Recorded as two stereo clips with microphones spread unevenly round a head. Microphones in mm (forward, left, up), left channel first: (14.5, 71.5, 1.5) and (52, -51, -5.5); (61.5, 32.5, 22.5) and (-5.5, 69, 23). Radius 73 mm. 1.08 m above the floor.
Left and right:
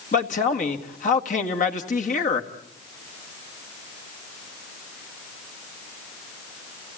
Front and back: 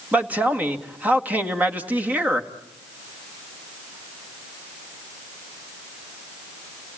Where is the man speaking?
85° left, 1.9 m.